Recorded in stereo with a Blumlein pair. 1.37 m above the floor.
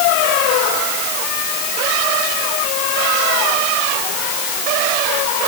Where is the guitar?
No guitar in this recording.